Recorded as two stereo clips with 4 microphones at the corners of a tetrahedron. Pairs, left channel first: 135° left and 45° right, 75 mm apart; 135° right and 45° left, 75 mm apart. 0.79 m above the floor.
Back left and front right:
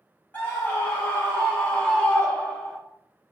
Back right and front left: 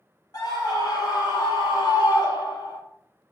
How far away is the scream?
About 3 m.